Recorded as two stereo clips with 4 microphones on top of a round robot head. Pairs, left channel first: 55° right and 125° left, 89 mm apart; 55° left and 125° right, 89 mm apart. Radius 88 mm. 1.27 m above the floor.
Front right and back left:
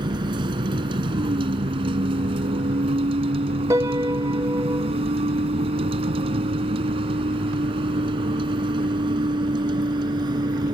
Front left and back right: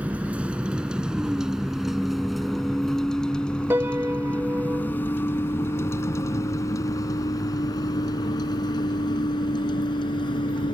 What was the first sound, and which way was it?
A vehicle, 160° left.